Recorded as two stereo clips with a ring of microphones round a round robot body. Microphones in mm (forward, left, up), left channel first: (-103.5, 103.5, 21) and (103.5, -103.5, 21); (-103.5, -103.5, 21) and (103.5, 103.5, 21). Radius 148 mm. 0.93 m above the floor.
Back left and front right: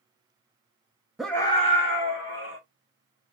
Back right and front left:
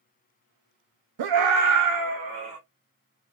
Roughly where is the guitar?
No guitar in this recording.